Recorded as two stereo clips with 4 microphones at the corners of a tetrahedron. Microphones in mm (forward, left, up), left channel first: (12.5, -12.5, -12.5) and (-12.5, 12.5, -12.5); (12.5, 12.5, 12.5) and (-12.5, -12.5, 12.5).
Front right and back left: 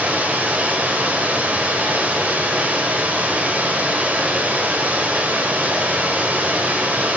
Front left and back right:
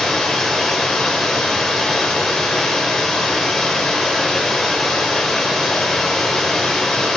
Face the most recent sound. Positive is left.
turn(degrees=125)